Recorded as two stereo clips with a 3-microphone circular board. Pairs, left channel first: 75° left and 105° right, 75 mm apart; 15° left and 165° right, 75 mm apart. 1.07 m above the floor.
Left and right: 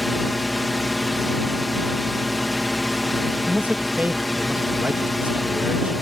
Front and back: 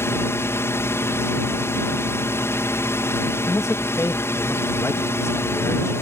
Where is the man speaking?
35° right.